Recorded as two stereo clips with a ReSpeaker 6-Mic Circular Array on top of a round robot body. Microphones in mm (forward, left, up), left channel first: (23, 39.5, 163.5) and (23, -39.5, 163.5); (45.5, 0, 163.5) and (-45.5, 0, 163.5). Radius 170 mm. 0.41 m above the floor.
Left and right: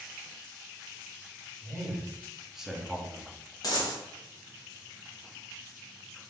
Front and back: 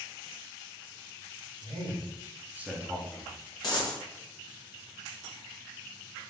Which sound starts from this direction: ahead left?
A dropped coin, at 3.6 s.